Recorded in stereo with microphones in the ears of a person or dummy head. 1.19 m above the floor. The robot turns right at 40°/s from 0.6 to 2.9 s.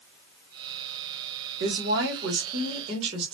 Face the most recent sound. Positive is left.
turn(degrees=-35)